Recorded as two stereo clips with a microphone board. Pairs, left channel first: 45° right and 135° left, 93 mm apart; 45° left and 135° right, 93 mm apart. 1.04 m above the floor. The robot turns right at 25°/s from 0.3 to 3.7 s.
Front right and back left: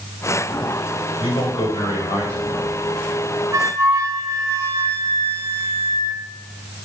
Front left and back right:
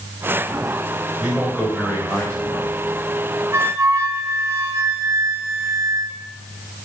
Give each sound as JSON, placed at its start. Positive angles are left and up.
{"t": 1.2, "sound": "a man speaking", "azimuth_deg": -50, "distance_m": 4.5}
{"t": 3.5, "sound": "a flute", "azimuth_deg": 175, "distance_m": 0.8}